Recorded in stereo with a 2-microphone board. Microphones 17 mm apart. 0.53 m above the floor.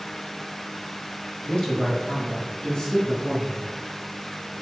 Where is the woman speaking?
65° left (ahead or behind), 2.5 m; by 3.7 s 45° left (ahead or behind), 5 m.